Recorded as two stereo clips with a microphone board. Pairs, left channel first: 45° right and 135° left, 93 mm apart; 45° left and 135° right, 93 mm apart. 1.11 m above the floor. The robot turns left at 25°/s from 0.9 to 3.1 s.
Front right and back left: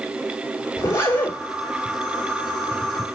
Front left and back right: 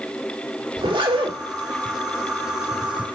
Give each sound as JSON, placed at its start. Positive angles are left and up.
{"t": 0.8, "sound": "a zipper", "azimuth_deg": -105, "distance_m": 2.5}